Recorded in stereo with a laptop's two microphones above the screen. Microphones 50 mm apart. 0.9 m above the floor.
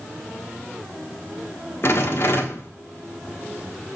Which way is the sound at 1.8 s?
55° left (ahead or behind).